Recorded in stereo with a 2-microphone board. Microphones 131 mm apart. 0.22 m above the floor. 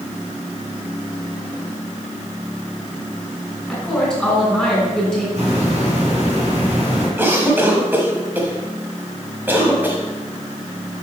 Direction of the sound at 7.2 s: 15° right (ahead or behind).